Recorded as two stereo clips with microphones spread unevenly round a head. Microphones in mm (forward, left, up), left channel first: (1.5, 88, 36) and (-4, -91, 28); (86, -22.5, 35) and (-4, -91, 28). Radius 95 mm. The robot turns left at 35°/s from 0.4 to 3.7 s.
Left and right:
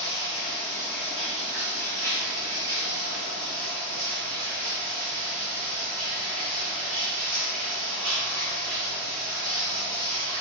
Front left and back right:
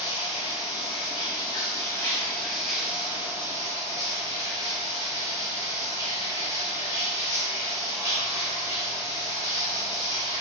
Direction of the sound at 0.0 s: 30° left.